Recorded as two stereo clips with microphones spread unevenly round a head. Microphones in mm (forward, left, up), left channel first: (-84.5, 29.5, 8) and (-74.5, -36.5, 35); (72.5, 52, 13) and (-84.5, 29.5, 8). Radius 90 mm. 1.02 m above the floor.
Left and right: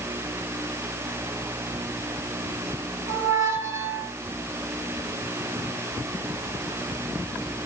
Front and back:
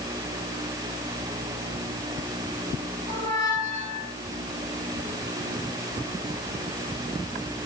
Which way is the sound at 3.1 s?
110° right.